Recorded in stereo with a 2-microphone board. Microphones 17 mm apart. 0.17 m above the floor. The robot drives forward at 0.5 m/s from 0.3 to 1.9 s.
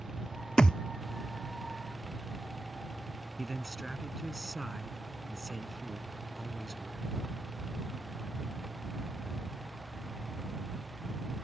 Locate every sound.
0.6 s a thud: 55° left (ahead or behind); by 0.8 s 50° left (ahead or behind)
3.4 s a man speaking: 15° right (ahead or behind)